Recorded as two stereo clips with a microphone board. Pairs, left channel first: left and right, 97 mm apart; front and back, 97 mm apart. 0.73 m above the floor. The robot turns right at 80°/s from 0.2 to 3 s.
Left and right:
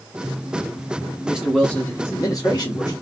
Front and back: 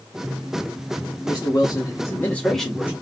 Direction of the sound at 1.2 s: 20° right.